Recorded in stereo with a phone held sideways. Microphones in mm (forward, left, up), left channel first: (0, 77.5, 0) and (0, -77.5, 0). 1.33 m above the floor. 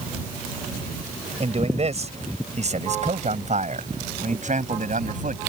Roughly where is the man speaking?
Right.